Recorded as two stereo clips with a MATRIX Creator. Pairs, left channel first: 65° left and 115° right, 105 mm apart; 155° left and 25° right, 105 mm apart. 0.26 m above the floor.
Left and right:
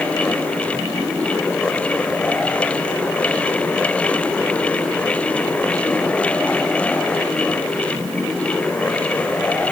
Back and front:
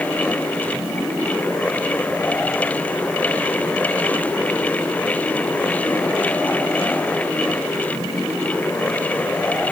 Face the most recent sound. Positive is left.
No sound to turn to.